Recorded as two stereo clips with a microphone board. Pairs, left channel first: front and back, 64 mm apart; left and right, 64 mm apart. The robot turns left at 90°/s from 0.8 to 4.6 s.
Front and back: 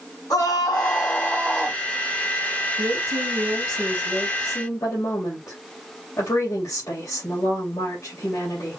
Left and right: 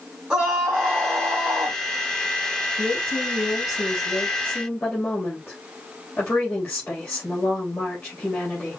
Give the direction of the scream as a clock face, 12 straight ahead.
12 o'clock.